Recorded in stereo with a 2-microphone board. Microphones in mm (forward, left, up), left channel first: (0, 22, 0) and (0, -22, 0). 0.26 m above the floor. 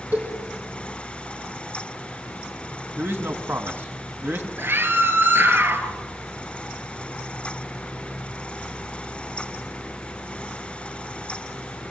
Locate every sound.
0.1 s a cowbell: 40° right (ahead or behind), 7.5 m
3.0 s a man speaking: 60° right (ahead or behind), 2 m
4.6 s a scream: 55° right (ahead or behind), 3.5 m